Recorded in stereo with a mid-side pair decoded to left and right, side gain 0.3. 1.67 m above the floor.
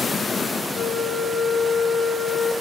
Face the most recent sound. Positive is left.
turn(degrees=70)